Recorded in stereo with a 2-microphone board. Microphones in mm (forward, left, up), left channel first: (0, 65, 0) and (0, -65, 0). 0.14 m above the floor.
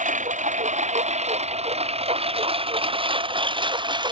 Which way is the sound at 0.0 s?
75° right (ahead or behind).